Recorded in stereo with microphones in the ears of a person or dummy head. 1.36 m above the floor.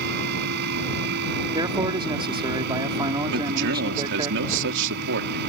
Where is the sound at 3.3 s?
70° right (ahead or behind).